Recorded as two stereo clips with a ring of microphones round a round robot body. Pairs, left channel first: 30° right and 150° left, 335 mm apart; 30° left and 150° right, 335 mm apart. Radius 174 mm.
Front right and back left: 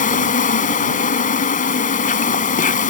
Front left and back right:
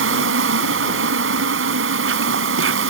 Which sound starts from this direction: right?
An insect, at 0.0 s.